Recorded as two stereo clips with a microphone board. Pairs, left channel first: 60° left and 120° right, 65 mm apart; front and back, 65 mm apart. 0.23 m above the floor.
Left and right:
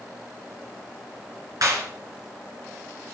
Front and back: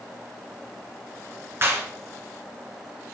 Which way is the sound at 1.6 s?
130° right.